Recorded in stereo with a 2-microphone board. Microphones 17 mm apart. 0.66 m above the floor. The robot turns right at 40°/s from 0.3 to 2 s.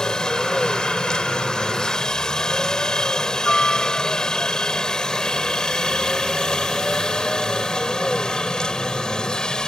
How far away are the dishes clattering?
I don't hear dishes clattering.